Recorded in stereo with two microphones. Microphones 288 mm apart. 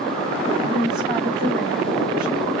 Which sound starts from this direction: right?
A woman speaking, at 0.7 s.